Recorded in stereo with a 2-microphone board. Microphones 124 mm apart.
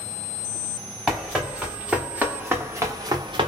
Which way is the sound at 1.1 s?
Centre (ahead or behind).